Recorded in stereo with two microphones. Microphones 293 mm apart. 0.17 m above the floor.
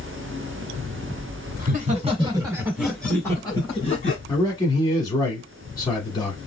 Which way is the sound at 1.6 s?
30° right (ahead or behind).